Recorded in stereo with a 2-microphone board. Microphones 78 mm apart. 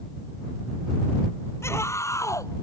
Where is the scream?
35° left (ahead or behind); by 2.6 s 45° left (ahead or behind).